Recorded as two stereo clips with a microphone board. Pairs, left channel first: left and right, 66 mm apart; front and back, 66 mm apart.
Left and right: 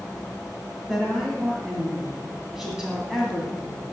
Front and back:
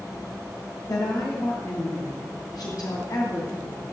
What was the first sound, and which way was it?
A woman speaking, 5° right.